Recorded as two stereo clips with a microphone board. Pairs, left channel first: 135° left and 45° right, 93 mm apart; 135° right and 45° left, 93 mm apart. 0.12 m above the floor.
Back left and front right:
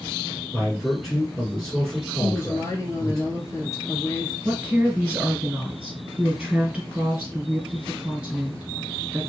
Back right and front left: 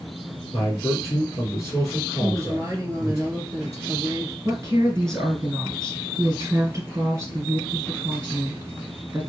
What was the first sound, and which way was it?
A man speaking, 145° right.